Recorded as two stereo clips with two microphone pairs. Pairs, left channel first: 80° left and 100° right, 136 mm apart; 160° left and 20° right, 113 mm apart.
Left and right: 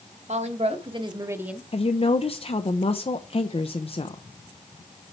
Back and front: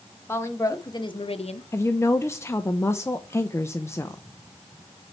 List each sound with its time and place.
0.3 s a woman speaking: 135° right, 1.2 m; by 1.6 s 170° left, 0.7 m
1.7 s a woman speaking: 100° left, 0.6 m